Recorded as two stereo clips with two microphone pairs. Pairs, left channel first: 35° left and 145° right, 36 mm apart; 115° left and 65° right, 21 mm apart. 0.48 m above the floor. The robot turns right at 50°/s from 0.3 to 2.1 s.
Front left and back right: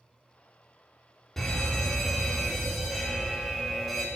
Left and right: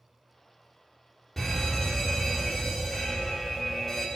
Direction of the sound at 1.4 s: 75° left.